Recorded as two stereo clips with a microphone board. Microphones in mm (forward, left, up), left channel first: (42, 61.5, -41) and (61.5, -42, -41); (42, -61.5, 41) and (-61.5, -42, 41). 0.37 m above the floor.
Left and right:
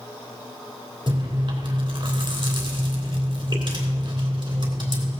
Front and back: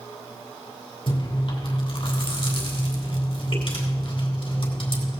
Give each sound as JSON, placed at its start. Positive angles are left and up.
{"t": 1.1, "sound": "chewing", "azimuth_deg": -40, "distance_m": 3.0}